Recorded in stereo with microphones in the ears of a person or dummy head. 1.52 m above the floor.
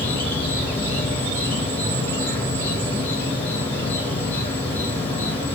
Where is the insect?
15° left (ahead or behind), 1.4 m.